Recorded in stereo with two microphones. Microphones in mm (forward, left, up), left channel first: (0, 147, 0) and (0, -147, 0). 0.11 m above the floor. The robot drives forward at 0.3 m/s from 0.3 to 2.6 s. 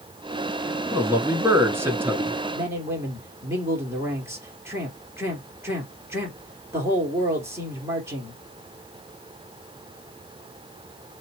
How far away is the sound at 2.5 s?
About 2.5 m.